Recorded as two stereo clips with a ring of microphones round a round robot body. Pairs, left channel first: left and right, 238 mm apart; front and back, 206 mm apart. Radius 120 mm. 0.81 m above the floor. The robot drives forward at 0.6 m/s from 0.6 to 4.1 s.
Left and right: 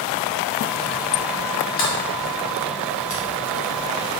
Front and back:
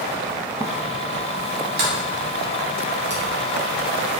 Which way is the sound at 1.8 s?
145° left.